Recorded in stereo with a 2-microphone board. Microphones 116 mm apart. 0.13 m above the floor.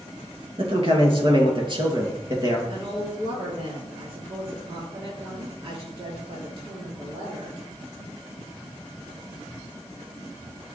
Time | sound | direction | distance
0.6 | a man speaking | 50° right (ahead or behind) | 2.5 m
2.7 | a woman speaking | 55° right (ahead or behind) | 3 m